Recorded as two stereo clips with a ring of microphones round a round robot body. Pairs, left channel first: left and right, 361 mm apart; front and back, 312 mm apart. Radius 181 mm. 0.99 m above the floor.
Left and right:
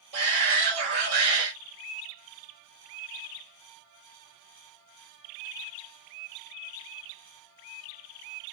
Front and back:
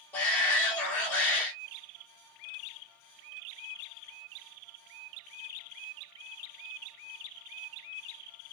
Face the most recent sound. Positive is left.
turn(degrees=-85)